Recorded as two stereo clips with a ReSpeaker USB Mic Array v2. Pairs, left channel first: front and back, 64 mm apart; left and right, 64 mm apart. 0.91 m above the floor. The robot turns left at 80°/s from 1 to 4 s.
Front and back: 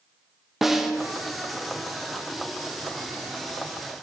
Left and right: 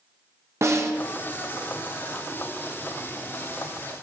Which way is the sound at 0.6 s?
95° right.